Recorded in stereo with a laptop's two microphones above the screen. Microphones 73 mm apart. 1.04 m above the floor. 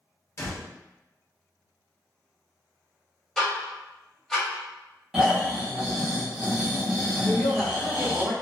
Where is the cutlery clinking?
I don't hear cutlery clinking.